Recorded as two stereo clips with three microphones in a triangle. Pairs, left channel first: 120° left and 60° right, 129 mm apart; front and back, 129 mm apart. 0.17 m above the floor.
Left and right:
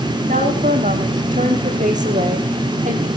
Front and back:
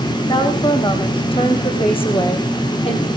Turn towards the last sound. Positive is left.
turn(degrees=-40)